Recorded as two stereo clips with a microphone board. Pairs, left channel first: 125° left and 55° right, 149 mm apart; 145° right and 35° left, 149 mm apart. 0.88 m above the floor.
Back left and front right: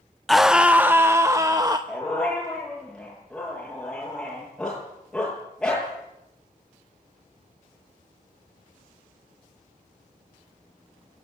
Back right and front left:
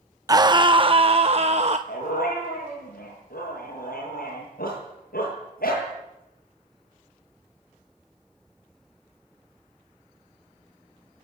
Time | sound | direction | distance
0.3 | a scream | 40° left | 0.7 m
1.9 | a dog barking | 150° right | 9.5 m